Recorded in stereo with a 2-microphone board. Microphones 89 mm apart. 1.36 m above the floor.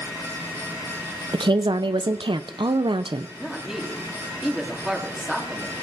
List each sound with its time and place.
1.3 s a woman speaking: 75° right (ahead or behind), 0.6 m
3.4 s a woman speaking: 5° right (ahead or behind), 2.5 m